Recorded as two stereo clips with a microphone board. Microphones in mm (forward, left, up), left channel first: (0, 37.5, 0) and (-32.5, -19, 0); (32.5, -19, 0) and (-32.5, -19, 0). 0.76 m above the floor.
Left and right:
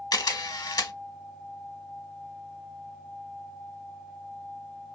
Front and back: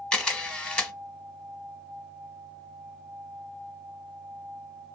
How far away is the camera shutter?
About 1.0 m.